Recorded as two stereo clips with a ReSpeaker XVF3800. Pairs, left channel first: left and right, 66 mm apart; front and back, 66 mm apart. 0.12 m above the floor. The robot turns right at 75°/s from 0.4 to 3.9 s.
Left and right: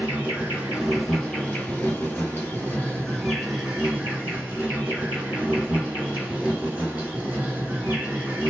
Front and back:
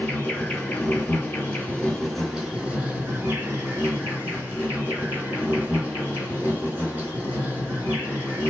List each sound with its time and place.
0.0 s an insect: 45° right, 1.6 m; by 8.5 s 145° right, 1.6 m